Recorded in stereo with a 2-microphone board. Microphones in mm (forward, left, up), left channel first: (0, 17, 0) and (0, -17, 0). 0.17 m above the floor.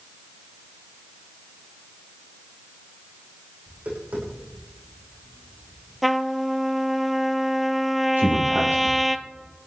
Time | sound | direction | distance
3.7 | tapping | 50° right (ahead or behind) | 9.5 m
6.0 | a trumpet | centre (ahead or behind) | 0.9 m
8.2 | a man speaking | 75° right (ahead or behind) | 5 m